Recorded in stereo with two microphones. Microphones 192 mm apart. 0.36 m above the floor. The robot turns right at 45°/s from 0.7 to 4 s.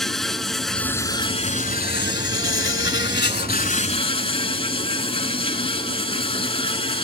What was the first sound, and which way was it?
An insect, straight ahead.